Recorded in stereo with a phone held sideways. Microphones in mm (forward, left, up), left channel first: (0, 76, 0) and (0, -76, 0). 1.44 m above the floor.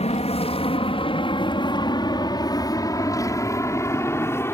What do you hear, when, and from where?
0.0 s an aircraft: 45° left (ahead or behind); by 4.5 s 15° left (ahead or behind)